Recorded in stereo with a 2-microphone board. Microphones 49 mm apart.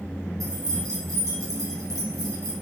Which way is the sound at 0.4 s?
80° right.